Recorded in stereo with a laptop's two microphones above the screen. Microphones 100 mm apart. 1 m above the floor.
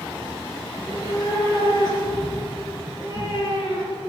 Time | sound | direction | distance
0.7 | a cat meowing | 35° left (ahead or behind) | 4.5 m